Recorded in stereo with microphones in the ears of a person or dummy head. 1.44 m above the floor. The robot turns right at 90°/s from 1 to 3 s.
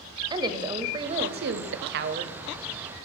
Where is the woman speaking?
155° right, 0.5 m; by 2.3 s 35° right, 0.5 m.